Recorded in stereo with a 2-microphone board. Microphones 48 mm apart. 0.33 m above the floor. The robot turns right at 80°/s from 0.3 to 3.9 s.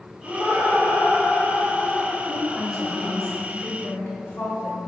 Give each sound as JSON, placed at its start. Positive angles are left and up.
{"t": 0.2, "sound": "laughter", "azimuth_deg": -55, "distance_m": 1.1}
{"t": 2.3, "sound": "a woman speaking", "side_deg": -25, "distance_m": 1.1}